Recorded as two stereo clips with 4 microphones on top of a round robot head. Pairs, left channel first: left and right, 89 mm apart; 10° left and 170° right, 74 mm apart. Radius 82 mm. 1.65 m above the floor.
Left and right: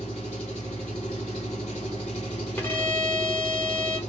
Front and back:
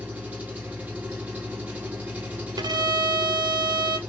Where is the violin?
160° left, 0.8 m.